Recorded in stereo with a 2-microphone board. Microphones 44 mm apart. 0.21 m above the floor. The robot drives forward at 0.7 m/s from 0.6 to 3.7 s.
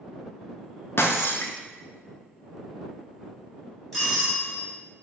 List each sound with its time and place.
1.0 s breaking glass: 70° left (ahead or behind), 0.6 m; by 1.5 s 65° left (ahead or behind), 0.6 m
3.9 s a doorbell: centre (ahead or behind), 1.7 m